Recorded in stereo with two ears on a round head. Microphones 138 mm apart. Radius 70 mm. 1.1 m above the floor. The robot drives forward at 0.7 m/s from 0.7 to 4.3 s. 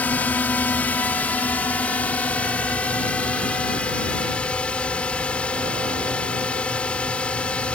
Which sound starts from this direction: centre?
A drone, at 0.0 s.